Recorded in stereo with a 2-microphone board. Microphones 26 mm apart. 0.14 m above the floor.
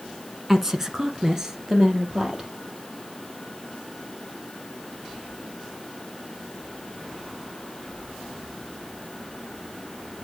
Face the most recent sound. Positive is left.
turn(degrees=-25)  # may be behind; listen again after turning